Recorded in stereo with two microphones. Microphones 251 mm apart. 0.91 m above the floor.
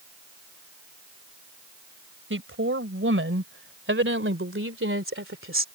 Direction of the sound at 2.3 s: 55° right (ahead or behind).